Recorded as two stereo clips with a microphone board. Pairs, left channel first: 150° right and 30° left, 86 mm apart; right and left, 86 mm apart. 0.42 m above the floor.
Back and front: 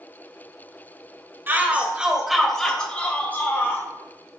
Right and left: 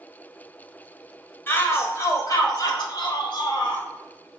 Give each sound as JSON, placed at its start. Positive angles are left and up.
{"t": 1.5, "sound": "a shout", "azimuth_deg": -30, "distance_m": 1.5}